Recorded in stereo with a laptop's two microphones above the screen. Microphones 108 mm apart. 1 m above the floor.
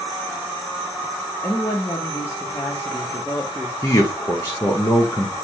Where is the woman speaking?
30° left (ahead or behind), 1.0 m.